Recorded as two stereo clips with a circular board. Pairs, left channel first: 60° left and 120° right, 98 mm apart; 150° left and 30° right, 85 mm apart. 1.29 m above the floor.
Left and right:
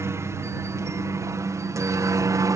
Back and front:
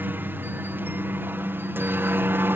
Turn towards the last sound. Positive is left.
turn(degrees=-85)